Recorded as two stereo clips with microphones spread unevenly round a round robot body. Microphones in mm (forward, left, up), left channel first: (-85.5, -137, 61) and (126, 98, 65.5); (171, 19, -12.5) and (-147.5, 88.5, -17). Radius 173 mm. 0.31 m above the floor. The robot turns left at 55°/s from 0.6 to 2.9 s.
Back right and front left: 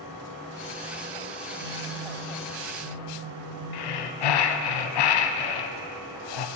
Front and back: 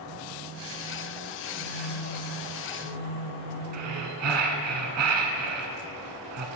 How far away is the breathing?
About 0.6 m.